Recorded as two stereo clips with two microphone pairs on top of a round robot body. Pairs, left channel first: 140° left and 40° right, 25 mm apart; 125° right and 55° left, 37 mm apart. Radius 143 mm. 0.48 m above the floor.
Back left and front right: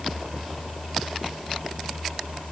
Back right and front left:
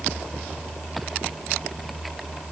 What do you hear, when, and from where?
Only background noise.